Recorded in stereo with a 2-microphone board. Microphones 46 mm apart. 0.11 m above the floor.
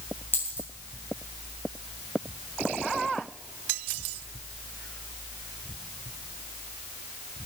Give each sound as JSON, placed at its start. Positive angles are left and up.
{"t": 0.3, "sound": "a dropped coin", "side_deg": 40, "distance_m": 5.5}